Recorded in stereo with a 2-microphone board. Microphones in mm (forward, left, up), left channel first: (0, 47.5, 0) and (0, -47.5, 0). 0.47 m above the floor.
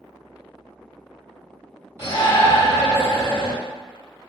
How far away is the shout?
About 1.8 m.